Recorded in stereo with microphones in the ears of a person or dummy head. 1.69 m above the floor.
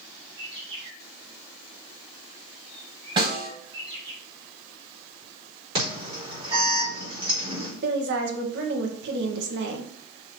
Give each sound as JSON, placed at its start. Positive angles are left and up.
{"t": 0.4, "sound": "a bird", "side_deg": -30, "distance_m": 3.0}
{"t": 3.2, "sound": "a snare drum", "side_deg": -30, "distance_m": 3.0}
{"t": 5.8, "sound": "an alarm", "side_deg": -30, "distance_m": 4.5}
{"t": 7.8, "sound": "a woman speaking", "side_deg": -65, "distance_m": 1.8}